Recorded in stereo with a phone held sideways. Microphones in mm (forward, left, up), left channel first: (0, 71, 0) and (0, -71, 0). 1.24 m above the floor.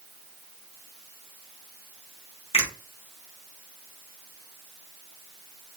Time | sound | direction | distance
2.5 | a finger snap | 45° left (ahead or behind) | 1.1 m